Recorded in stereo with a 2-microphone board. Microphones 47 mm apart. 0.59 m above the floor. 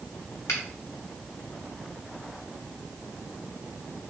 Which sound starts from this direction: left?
A finger snap, at 0.5 s.